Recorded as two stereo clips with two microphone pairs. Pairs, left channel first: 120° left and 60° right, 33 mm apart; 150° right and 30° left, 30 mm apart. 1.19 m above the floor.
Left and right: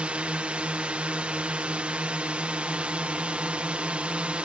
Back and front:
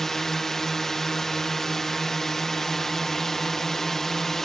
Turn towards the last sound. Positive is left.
turn(degrees=-80)